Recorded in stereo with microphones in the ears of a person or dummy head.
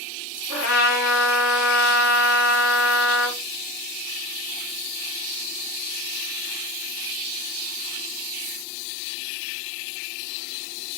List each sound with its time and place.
0.5 s a trumpet: 65° left (ahead or behind), 3 m